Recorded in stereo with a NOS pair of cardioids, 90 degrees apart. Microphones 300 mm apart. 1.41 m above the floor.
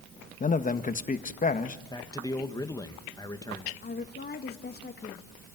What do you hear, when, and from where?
0.4 s a man speaking: 25° left, 1.5 m
1.9 s a man speaking: 10° left, 1.9 m
3.8 s a woman speaking: 30° left, 1.7 m